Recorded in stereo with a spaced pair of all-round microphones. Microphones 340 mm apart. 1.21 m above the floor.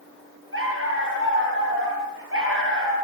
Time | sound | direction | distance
0.5 | a dog barking | 35° right (ahead or behind) | 10 m